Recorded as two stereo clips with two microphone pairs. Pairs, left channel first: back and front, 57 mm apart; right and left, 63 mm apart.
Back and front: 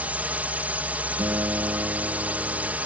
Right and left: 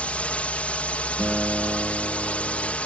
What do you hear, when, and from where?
0.0 s a drone: 40° right
1.2 s a guitar: 10° left